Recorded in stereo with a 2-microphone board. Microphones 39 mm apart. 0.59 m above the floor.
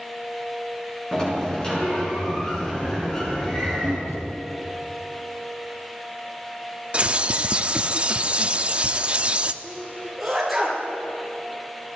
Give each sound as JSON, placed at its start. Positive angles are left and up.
{"t": 1.1, "sound": "a sliding door", "side_deg": 20, "distance_m": 6.5}
{"t": 4.1, "sound": "a thud", "side_deg": 85, "distance_m": 5.0}
{"t": 6.9, "sound": "a bird", "side_deg": -30, "distance_m": 0.8}
{"t": 9.6, "sound": "a sneeze", "side_deg": 0, "distance_m": 9.5}